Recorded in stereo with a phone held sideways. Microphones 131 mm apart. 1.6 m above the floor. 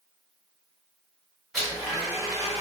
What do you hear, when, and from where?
1.5 s a blender: centre (ahead or behind), 2.0 m